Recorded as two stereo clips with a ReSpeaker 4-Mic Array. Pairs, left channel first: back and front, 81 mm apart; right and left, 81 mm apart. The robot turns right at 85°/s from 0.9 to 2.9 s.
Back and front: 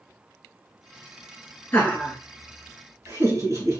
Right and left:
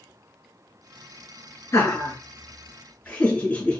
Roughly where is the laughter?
Behind right.